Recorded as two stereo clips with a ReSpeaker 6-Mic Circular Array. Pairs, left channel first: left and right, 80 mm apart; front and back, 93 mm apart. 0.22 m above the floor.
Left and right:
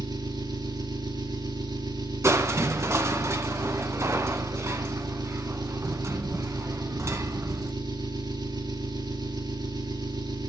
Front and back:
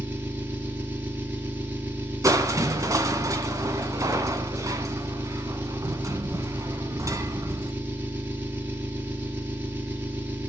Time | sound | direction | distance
0.0 | an engine running | 110° right | 3.5 m
2.2 | crushing | 135° right | 1.5 m